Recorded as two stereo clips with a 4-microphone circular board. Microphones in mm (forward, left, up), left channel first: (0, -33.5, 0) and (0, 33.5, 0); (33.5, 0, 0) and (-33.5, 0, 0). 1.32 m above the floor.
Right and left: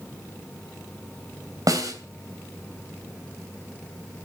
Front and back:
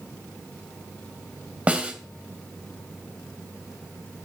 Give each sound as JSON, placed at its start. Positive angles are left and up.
{"t": 1.7, "sound": "a snare drum", "azimuth_deg": 110, "distance_m": 3.0}